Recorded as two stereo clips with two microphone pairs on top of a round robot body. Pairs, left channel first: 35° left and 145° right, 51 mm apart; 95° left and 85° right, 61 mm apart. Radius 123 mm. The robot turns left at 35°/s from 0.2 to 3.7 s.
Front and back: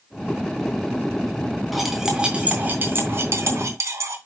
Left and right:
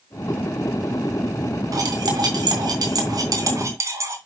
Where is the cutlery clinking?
55° right, 3 m; by 4.2 s 125° right, 3 m.